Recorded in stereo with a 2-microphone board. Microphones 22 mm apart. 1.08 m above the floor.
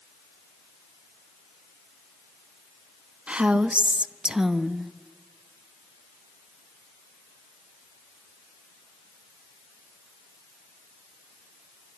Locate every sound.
3.3 s a woman speaking: 60° right (ahead or behind), 1.3 m; by 4.9 s 5° right (ahead or behind), 1.5 m